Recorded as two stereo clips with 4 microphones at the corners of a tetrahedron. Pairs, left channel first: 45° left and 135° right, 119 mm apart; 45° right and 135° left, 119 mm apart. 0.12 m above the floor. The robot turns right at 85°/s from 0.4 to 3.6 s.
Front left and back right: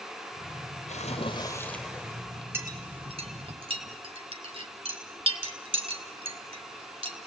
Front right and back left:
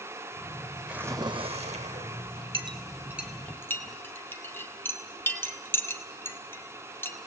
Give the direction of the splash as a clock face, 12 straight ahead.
10 o'clock.